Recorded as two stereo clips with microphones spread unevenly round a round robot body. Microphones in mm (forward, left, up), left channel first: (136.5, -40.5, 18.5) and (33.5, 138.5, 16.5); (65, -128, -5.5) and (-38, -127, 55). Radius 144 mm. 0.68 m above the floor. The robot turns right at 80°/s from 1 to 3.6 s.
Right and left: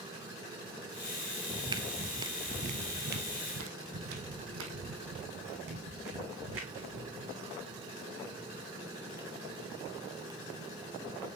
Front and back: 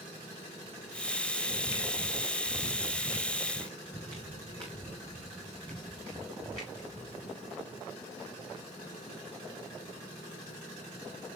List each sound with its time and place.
1.5 s footsteps: 55° left, 0.8 m; by 7.4 s 110° left, 4 m